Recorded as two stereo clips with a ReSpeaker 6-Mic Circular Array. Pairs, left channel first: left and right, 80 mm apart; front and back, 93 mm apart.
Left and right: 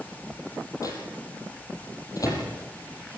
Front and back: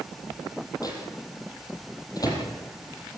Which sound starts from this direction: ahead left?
A microwave, at 0.8 s.